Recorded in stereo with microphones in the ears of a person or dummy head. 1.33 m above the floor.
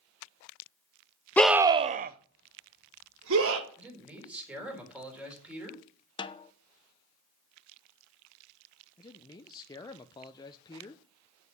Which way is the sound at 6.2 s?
25° left (ahead or behind).